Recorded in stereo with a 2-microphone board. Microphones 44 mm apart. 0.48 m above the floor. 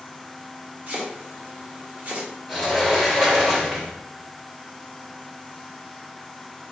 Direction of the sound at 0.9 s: 40° right (ahead or behind).